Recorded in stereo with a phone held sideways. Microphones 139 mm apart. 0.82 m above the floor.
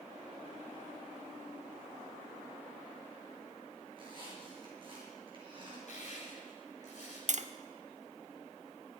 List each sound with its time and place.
3.9 s a squeak: 40° right (ahead or behind), 6 m
5.9 s crushing: 60° left (ahead or behind), 6.5 m
7.3 s tapping: 60° right (ahead or behind), 0.6 m